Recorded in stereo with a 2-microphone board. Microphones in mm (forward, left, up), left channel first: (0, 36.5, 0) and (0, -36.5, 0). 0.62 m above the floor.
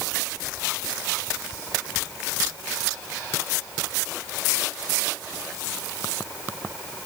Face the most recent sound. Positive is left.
No sound to turn to.